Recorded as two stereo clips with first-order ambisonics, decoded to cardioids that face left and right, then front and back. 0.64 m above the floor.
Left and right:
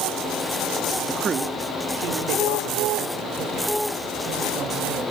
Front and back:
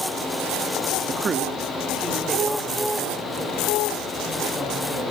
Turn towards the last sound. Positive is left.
turn(degrees=-85)